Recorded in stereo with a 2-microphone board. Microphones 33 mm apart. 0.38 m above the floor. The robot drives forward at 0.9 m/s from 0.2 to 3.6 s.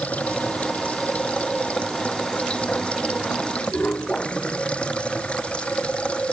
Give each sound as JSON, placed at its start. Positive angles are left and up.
{"t": 0.0, "sound": "running water", "side_deg": 45}